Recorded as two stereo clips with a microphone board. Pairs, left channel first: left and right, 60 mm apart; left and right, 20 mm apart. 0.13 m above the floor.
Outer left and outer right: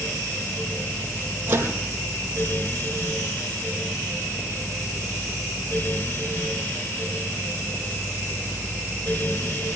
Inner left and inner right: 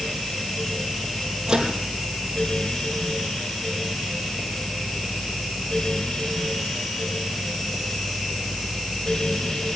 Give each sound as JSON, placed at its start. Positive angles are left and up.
{"t": 1.5, "sound": "a microwave", "side_deg": -35, "distance_m": 4.0}